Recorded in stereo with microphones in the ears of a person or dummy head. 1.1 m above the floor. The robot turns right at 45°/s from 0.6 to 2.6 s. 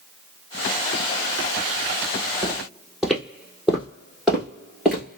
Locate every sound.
2.4 s footsteps: 5° right (ahead or behind), 1.2 m; by 5.2 s centre (ahead or behind), 1.3 m